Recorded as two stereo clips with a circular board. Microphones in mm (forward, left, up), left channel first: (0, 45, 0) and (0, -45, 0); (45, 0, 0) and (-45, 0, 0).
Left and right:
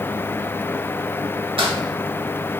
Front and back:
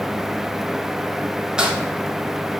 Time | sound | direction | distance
1.6 | crumpling | 100° right | 1.1 m